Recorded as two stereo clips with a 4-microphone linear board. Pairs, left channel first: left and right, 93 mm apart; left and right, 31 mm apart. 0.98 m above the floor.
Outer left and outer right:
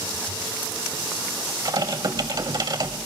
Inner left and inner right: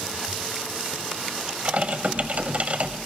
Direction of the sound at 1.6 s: 50° right (ahead or behind).